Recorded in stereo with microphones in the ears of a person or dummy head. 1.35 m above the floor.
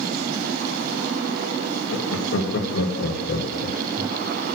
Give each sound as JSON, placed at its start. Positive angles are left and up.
{"t": 1.9, "sound": "laughter", "side_deg": 80, "distance_m": 2.5}